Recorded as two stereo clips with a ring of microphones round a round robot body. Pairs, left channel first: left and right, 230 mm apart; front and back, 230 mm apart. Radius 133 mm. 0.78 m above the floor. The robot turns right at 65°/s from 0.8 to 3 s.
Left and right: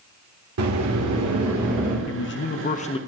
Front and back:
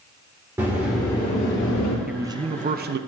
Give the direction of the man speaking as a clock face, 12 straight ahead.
9 o'clock.